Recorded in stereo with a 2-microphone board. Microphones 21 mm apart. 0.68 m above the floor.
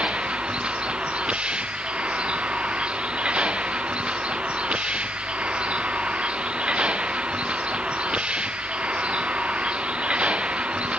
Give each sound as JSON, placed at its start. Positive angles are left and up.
{"t": 0.0, "sound": "a vehicle", "side_deg": -60}